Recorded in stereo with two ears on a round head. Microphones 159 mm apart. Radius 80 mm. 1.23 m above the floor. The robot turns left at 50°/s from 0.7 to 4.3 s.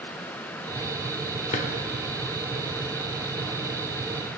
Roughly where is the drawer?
Left.